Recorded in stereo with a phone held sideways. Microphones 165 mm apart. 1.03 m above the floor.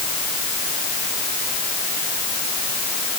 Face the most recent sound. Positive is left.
No sound to turn to.